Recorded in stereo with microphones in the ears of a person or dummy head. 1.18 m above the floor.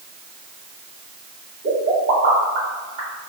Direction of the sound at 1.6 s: 50° right (ahead or behind).